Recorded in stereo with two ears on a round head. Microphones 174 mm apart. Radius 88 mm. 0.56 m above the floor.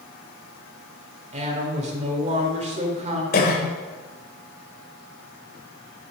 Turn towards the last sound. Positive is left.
turn(degrees=55)  # may be behind; listen again after turning